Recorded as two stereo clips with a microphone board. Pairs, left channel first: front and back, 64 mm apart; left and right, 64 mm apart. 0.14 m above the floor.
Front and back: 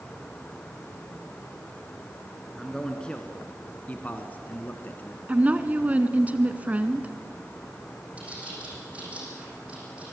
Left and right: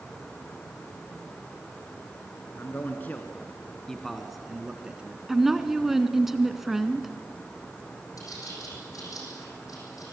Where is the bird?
110° left, 6 m.